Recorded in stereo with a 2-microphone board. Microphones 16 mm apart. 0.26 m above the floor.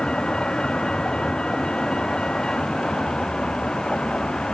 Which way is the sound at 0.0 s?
50° left (ahead or behind).